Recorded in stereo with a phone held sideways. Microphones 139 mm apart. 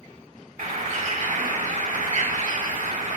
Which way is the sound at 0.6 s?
80° right.